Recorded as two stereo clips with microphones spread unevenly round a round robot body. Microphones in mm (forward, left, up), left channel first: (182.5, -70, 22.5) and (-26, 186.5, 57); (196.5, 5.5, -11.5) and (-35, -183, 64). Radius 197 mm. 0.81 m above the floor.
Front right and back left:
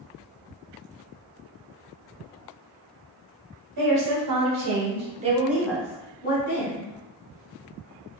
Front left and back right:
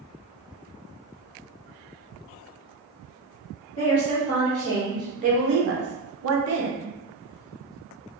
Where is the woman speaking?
100° left, 1.1 m; by 6.9 s 95° right, 1.2 m.